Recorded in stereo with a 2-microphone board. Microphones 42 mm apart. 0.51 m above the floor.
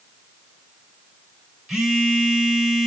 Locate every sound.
1.7 s a phone buzzing: 15° right (ahead or behind), 2 m